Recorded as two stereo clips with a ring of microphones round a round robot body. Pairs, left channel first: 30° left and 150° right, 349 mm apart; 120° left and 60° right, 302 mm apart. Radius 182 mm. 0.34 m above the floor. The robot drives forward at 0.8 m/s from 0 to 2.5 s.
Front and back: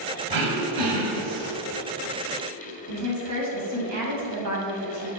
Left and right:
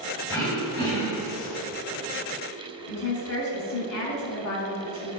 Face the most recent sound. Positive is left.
turn(degrees=170)